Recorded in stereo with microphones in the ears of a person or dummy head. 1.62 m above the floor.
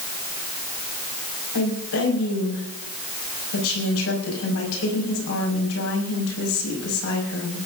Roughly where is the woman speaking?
Left.